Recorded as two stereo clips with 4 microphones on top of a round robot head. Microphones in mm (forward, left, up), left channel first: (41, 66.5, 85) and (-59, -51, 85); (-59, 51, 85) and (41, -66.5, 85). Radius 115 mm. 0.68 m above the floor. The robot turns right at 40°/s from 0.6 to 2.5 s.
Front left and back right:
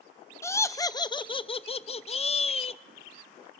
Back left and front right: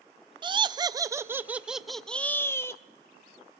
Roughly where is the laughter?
Ahead.